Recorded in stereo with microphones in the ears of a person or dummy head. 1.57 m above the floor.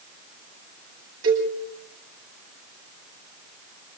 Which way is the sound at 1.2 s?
80° right.